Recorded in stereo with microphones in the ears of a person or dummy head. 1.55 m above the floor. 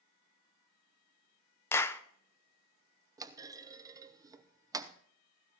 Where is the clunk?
20° right (ahead or behind), 0.7 m.